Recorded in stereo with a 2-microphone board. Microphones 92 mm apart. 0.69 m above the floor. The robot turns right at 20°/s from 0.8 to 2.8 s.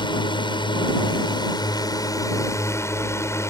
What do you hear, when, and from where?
0.0 s a drone: 105° left; by 3.5 s 145° left